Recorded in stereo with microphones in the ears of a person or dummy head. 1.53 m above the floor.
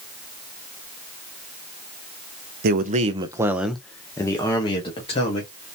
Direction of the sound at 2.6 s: 55° right (ahead or behind).